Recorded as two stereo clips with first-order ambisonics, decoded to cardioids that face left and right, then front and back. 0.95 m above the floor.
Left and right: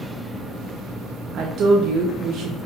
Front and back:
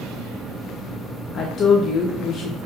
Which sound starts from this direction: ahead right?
A woman speaking, at 1.3 s.